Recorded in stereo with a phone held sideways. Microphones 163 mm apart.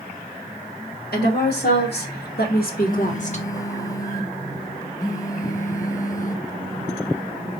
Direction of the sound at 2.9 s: 20° left (ahead or behind).